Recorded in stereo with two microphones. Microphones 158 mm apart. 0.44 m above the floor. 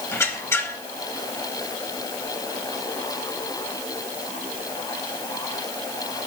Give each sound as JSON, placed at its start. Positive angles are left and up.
{"t": 0.1, "sound": "a squeak", "side_deg": 15, "distance_m": 0.8}